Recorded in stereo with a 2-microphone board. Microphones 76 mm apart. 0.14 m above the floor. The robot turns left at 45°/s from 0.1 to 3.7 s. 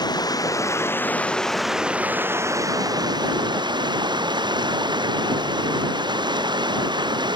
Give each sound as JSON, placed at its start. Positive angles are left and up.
{"t": 0.0, "sound": "running water", "azimuth_deg": 70}